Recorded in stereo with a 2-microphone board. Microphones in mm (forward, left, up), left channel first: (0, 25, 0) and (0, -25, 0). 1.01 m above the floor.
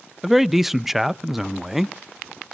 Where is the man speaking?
5° right (ahead or behind), 0.5 m.